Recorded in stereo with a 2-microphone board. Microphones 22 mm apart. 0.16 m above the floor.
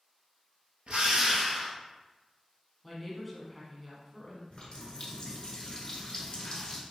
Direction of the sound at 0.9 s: 70° right (ahead or behind).